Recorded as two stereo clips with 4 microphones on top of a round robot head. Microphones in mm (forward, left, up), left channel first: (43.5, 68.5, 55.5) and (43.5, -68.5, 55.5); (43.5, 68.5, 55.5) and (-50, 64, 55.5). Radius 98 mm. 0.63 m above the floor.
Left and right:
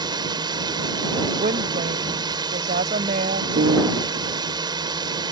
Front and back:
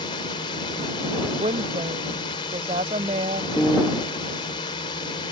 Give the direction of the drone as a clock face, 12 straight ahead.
1 o'clock.